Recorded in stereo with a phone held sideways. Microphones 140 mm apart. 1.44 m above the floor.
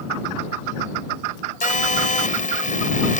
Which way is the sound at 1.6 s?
70° left (ahead or behind).